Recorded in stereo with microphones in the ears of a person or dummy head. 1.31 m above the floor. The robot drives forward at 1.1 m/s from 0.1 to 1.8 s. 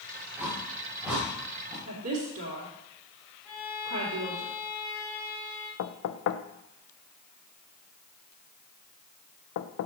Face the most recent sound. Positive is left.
turn(degrees=65)  # may be behind; listen again after turning